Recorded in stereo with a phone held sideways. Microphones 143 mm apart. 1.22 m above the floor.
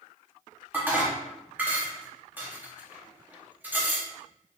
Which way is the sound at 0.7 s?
15° right (ahead or behind).